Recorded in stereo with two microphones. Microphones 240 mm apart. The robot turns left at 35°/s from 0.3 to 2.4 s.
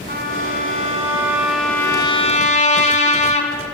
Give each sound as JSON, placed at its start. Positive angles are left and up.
{"t": 0.1, "sound": "a trumpet", "azimuth_deg": -135, "distance_m": 2.5}